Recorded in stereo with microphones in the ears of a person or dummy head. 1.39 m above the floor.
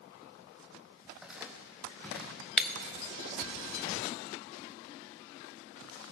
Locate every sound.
1.1 s footsteps: 5° right (ahead or behind), 3 m; by 2.4 s 10° left (ahead or behind), 5 m
2.6 s breaking glass: 5° left (ahead or behind), 0.9 m